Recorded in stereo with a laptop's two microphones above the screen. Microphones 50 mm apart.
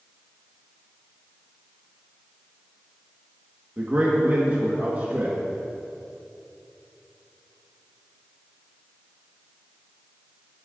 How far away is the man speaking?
About 1.4 m.